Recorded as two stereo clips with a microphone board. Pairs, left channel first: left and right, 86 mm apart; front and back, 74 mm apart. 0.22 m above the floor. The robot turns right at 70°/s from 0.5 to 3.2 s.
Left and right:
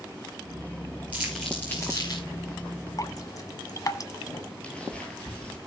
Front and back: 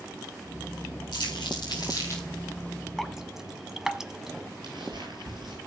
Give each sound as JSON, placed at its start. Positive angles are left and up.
{"t": 1.1, "sound": "crumpling", "azimuth_deg": -15, "distance_m": 7.0}
{"t": 3.0, "sound": "dripping", "azimuth_deg": 85, "distance_m": 1.1}
{"t": 4.6, "sound": "footsteps", "azimuth_deg": 165, "distance_m": 9.0}